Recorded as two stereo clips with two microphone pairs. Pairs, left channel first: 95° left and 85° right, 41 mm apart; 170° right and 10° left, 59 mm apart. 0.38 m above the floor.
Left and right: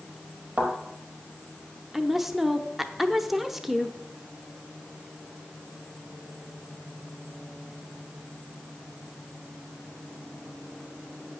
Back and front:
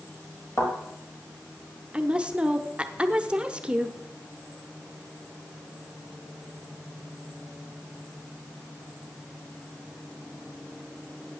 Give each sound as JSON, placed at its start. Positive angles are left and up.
{"t": 0.6, "sound": "a thud", "azimuth_deg": -135, "distance_m": 4.0}
{"t": 1.9, "sound": "a woman speaking", "azimuth_deg": -10, "distance_m": 0.8}